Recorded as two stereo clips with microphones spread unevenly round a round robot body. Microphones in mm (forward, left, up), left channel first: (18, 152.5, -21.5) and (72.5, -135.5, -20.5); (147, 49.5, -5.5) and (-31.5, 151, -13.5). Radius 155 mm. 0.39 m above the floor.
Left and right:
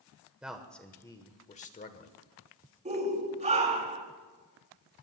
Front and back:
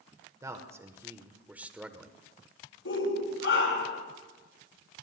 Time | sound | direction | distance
0.4 | a man speaking | 160° right | 1.0 m
2.9 | a shout | 15° right | 4.5 m